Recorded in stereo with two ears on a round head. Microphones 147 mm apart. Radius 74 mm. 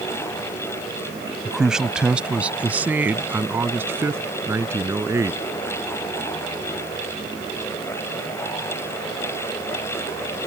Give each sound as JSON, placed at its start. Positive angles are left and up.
{"t": 1.4, "sound": "a man speaking", "side_deg": 0}